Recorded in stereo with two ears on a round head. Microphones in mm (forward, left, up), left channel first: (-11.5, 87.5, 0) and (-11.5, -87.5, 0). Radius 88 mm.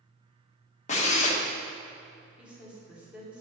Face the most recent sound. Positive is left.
turn(degrees=-5)  # may be behind; listen again after turning